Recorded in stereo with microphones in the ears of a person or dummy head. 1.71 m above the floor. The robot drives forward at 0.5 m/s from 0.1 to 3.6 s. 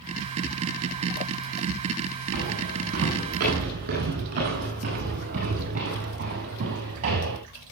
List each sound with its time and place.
2.3 s footsteps: 50° right (ahead or behind), 9.5 m; by 7.4 s 35° right (ahead or behind), 7.5 m